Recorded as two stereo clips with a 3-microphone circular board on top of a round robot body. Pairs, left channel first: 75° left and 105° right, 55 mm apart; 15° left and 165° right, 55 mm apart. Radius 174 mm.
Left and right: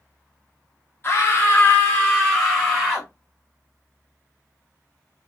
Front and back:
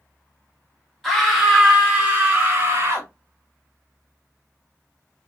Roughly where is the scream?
Left.